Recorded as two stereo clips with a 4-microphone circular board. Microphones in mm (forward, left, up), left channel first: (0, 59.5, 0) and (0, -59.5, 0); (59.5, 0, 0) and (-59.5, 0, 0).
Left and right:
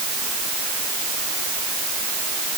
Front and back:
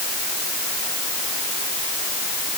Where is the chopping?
No chopping in this recording.